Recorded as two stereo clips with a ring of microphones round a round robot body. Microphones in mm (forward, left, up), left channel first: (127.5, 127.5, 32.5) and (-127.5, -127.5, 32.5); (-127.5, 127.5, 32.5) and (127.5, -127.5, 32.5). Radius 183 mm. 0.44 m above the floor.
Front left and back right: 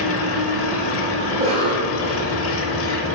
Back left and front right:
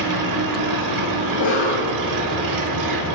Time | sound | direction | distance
0.0 | an engine running | 10° right | 0.9 m
1.3 | a cough | 165° left | 1.3 m